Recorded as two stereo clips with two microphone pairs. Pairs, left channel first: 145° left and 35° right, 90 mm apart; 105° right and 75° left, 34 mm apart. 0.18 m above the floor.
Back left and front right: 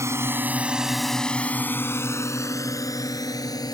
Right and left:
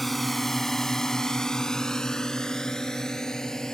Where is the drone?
20° right; by 3.8 s 175° right.